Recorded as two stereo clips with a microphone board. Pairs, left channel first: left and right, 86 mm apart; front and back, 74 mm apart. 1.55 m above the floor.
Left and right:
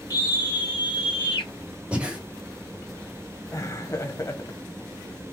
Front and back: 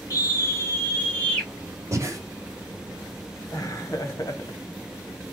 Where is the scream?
45° left, 2.5 m; by 1.5 s 75° left, 3 m.